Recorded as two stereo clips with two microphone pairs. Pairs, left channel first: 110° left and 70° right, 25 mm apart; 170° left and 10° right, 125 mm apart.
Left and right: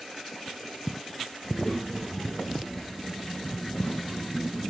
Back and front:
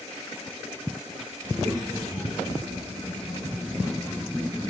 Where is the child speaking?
40° left, 2 m; by 4.7 s 120° left, 1.2 m.